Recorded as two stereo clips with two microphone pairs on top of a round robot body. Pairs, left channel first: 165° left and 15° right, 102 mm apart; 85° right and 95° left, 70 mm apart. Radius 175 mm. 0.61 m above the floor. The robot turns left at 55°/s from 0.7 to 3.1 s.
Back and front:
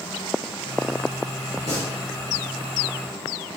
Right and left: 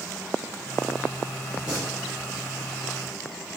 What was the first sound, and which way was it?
Singing, 170° left.